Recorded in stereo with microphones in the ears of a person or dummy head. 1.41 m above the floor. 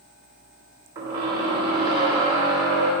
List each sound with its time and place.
0.9 s a squeak: 20° right (ahead or behind), 1.5 m